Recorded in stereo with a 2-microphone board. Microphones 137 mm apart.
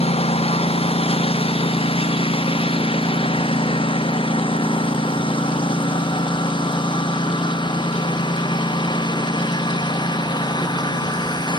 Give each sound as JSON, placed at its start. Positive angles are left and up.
{"t": 0.0, "sound": "a lawn mower", "side_deg": 45}